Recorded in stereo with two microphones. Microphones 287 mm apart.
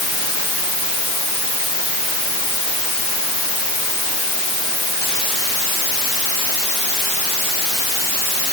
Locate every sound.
Only background noise.